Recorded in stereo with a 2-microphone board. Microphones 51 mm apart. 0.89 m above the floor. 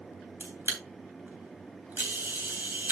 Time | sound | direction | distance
0.4 | a camera shutter | 40° right (ahead or behind) | 3 m